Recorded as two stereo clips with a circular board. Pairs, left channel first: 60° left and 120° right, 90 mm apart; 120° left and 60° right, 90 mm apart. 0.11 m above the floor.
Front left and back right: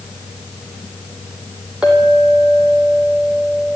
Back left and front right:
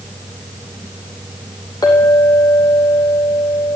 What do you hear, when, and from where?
1.8 s a clink: 160° left, 3 m